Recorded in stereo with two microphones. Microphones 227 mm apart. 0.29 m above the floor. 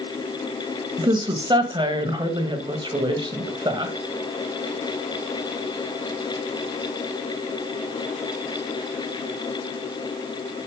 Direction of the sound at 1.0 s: 20° right (ahead or behind).